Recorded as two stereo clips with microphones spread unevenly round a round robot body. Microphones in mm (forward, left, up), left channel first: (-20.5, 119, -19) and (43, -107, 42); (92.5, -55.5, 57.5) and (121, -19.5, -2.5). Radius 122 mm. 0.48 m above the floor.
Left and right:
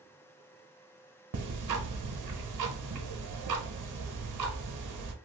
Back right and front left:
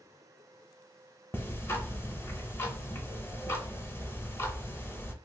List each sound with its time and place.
1.3 s ticking: 90° right, 0.8 m